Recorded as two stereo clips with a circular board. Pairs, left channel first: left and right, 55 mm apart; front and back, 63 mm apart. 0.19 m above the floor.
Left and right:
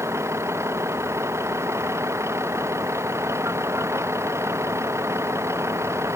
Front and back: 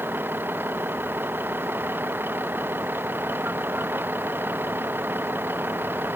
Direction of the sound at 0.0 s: 120° right.